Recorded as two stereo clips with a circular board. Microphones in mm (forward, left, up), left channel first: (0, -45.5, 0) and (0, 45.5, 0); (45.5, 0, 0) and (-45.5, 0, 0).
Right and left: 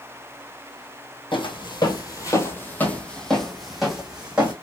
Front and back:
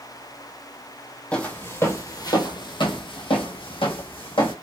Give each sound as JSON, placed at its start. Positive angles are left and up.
{"t": 1.3, "sound": "footsteps", "azimuth_deg": -75, "distance_m": 0.9}